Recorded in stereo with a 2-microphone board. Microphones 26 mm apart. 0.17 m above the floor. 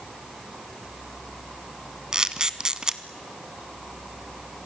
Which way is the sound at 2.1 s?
30° right (ahead or behind).